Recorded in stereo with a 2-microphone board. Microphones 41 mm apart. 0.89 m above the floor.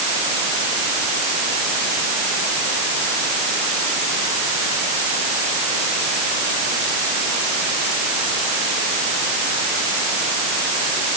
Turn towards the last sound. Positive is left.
No sound to turn to.